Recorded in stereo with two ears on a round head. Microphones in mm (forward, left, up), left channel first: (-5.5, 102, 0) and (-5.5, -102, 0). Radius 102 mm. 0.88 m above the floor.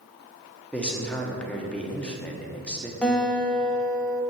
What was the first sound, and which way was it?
A man speaking, 5° left (ahead or behind).